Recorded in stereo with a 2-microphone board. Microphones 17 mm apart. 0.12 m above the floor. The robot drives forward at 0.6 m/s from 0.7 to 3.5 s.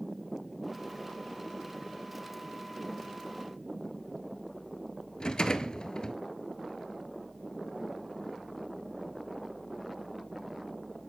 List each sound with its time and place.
5.2 s a rattle: 50° left (ahead or behind), 1.1 m